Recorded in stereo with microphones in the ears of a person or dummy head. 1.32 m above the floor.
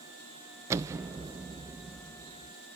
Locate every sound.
0.7 s an explosion: 15° right (ahead or behind), 0.5 m